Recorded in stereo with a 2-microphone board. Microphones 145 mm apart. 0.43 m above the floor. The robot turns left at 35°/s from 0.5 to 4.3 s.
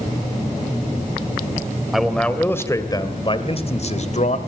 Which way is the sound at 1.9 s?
Straight behind.